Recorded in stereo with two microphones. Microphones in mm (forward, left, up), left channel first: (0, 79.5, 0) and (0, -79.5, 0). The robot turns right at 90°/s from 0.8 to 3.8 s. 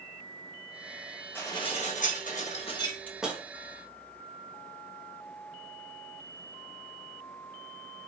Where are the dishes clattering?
15° left, 0.9 m; by 3.4 s 160° right, 0.9 m.